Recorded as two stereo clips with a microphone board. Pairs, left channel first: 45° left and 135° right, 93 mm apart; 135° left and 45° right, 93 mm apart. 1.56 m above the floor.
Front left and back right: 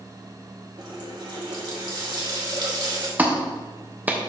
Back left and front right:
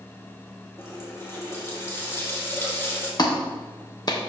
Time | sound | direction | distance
0.8 | a running tap | 165° right | 1.8 m
3.2 | a clap | 160° left | 1.0 m